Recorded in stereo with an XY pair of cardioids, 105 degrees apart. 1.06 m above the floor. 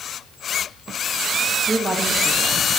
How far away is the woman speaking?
About 1.3 m.